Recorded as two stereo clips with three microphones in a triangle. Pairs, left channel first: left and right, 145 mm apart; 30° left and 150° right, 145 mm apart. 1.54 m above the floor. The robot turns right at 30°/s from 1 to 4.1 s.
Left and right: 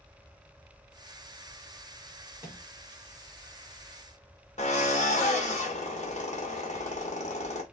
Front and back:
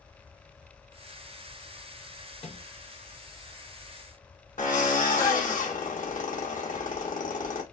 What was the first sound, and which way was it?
A microwave, 20° right.